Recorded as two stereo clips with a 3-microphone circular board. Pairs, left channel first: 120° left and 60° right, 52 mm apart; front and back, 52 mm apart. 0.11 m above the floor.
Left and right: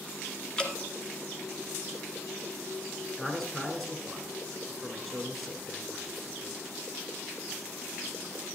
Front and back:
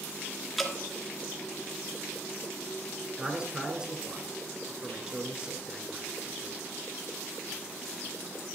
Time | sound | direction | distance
0.6 | dripping | 85° left | 1.1 m
3.2 | a man speaking | 165° right | 1.1 m